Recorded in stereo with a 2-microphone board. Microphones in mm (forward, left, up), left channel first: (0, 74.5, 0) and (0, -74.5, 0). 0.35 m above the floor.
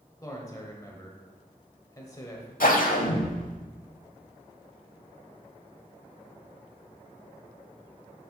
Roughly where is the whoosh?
Left.